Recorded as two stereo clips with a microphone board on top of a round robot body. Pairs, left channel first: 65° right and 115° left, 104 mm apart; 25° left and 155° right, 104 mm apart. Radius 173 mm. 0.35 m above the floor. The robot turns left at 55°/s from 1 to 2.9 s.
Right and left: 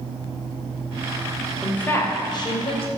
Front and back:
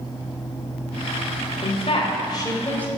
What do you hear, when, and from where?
1.6 s a woman speaking: 15° left, 3 m; by 2.9 s 55° right, 3 m